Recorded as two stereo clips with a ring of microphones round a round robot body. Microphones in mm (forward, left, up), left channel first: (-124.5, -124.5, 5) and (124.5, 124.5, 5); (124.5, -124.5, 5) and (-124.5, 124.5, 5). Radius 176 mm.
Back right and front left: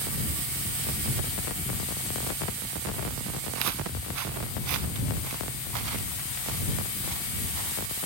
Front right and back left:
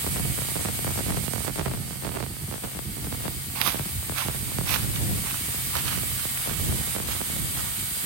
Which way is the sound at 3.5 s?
90° left.